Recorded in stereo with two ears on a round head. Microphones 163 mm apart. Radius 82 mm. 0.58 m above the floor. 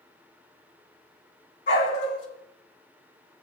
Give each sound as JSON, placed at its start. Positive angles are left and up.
{"t": 1.7, "sound": "a dog barking", "side_deg": 45, "distance_m": 6.5}